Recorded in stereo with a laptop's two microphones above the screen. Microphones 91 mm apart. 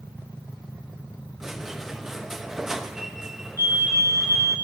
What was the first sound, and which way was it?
A squeak, 5° right (ahead or behind).